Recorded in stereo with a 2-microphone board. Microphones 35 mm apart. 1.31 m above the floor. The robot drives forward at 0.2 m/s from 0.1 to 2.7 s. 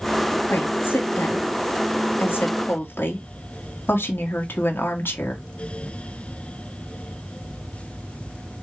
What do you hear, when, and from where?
0.5 s a woman speaking: 80° left, 2 m; by 5.4 s 85° left, 2 m